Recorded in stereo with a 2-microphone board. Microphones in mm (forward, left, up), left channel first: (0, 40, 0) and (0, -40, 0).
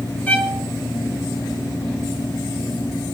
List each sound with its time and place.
0.3 s a violin: 20° left (ahead or behind), 1.6 m